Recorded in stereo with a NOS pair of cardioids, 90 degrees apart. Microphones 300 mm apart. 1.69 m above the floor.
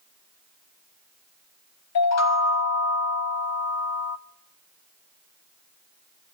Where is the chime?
60° left, 1.0 m.